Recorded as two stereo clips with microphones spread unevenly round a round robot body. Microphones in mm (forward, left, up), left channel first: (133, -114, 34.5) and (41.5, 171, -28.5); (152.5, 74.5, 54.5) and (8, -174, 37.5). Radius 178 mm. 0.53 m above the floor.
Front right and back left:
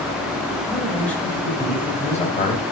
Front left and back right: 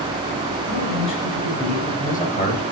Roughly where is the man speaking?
Ahead left.